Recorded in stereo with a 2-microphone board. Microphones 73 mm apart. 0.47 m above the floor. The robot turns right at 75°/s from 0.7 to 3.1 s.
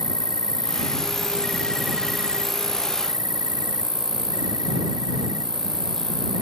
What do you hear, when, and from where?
0.0 s an insect: 95° left; by 6.4 s 85° right